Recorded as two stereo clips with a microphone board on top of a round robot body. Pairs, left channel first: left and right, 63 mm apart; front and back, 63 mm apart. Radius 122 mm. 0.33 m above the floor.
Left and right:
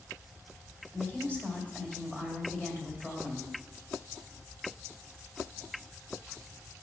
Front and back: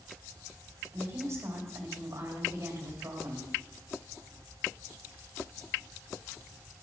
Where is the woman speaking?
155° left, 2 m.